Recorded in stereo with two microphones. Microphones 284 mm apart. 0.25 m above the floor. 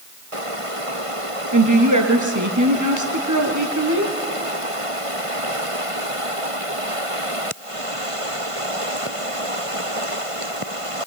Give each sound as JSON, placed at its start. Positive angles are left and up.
{"t": 1.5, "sound": "a woman speaking", "side_deg": -75, "distance_m": 4.0}